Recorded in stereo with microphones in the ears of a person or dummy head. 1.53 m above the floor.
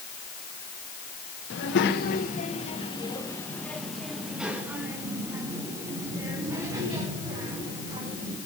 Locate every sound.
1.5 s a child speaking: 60° left (ahead or behind), 1.3 m; by 8.4 s 30° right (ahead or behind), 4 m